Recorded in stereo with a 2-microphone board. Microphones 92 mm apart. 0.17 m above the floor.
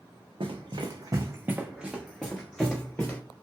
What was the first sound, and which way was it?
Running footsteps, 70° right (ahead or behind).